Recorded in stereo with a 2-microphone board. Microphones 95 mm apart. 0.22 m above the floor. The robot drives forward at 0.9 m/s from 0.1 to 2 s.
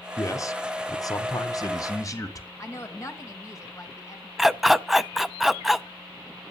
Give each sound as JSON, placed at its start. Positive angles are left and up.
{"t": 0.2, "sound": "a man speaking", "side_deg": 30, "distance_m": 1.7}
{"t": 2.6, "sound": "a woman speaking", "side_deg": 30, "distance_m": 2.5}
{"t": 4.4, "sound": "a dog barking", "side_deg": -5, "distance_m": 0.5}